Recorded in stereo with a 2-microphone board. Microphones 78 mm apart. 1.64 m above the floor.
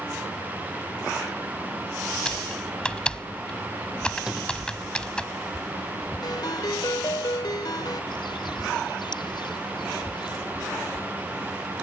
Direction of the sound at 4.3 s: 10° right (ahead or behind).